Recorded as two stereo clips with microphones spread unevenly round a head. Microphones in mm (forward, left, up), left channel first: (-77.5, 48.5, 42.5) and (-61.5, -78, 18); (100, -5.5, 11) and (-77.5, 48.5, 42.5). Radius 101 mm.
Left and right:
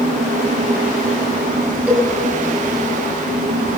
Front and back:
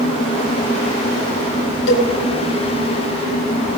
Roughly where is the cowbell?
Ahead.